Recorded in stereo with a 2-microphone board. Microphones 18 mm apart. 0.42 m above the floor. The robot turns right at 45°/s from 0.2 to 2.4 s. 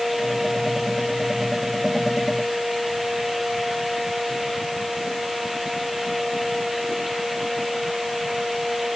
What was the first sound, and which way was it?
Only background noise.